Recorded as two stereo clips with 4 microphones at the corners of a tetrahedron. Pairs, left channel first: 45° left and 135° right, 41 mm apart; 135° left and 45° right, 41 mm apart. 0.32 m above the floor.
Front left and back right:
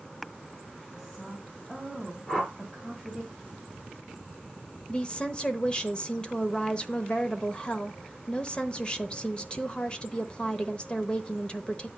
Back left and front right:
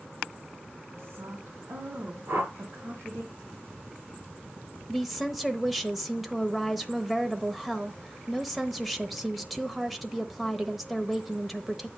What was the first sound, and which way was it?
A woman speaking, 35° right.